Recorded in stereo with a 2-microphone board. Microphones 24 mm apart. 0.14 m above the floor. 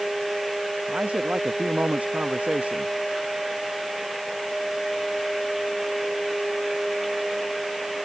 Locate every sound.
0.9 s a man speaking: 60° right (ahead or behind)